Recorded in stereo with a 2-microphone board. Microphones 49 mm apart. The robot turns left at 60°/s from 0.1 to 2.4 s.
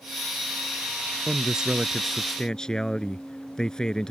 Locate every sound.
1.3 s a man speaking: 135° right; by 4.1 s 155° left